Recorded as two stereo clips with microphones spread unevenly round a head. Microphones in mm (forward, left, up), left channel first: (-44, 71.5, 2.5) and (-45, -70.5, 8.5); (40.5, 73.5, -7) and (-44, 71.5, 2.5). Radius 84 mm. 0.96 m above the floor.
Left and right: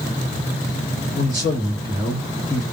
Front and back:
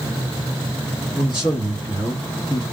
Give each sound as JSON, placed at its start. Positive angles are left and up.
{"t": 1.1, "sound": "a man speaking", "azimuth_deg": -25, "distance_m": 1.9}